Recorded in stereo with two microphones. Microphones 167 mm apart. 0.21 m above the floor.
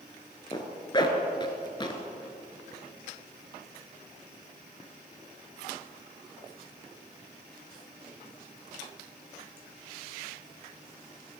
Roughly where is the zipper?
Left.